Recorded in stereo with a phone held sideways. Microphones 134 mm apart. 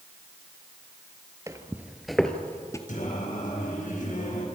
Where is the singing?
80° left, 5 m.